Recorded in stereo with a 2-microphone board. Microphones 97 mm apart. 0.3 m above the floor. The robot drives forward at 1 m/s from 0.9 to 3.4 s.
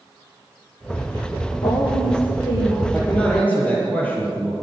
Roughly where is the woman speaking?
Left.